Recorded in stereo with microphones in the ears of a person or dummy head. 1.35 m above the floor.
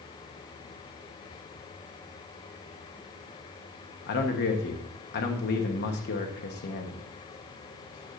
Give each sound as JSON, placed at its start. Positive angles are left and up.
{"t": 4.1, "sound": "a man speaking", "side_deg": 50, "distance_m": 1.2}